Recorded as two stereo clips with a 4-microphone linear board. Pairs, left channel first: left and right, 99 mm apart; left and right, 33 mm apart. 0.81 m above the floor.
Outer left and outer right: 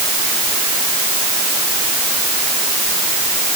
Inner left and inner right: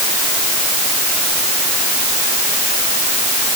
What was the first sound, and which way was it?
Only background noise.